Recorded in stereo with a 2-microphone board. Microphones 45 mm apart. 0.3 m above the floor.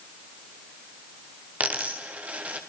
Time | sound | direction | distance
1.6 | a dropped coin | 35° right (ahead or behind) | 3.5 m